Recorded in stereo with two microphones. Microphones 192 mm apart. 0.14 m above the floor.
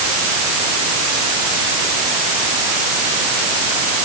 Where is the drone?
No drone in this recording.